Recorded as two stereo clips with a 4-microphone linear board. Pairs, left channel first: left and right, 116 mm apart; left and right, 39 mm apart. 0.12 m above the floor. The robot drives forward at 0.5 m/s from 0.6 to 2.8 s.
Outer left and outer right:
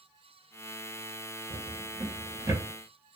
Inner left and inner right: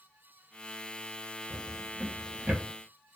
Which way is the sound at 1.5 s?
50° right (ahead or behind).